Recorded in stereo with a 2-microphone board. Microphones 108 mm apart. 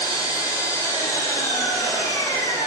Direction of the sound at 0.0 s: 30° left (ahead or behind).